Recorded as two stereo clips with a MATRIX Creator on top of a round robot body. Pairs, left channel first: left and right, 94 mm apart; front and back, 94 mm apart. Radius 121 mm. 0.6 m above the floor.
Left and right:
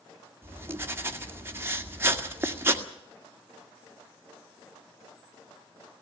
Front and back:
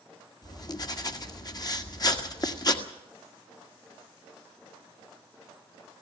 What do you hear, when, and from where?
0.4 s writing: 30° right, 1.9 m